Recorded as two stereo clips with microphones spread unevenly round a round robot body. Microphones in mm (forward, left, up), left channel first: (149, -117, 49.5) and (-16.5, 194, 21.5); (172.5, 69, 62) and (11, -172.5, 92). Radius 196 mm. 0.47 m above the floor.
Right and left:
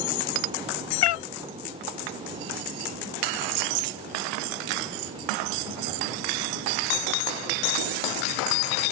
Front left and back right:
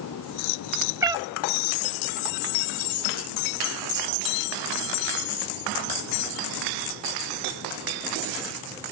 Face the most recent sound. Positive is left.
turn(degrees=-45)